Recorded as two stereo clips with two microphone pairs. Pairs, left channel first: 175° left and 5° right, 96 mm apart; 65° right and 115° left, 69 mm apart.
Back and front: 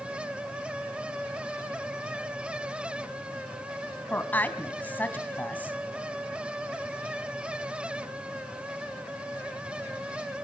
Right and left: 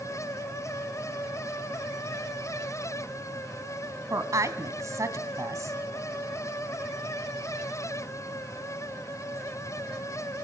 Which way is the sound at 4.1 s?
110° left.